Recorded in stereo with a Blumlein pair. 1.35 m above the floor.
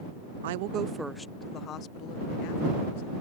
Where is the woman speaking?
60° right; by 3.2 s 50° left.